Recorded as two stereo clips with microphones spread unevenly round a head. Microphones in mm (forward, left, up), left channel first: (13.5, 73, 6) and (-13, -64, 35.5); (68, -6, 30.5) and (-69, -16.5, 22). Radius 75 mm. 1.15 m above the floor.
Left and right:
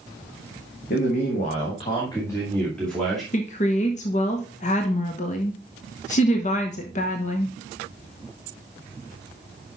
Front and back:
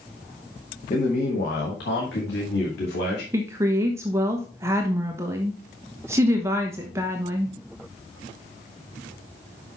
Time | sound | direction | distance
0.9 | a man speaking | 55° left | 1.5 m
3.3 | a woman speaking | 115° left | 0.9 m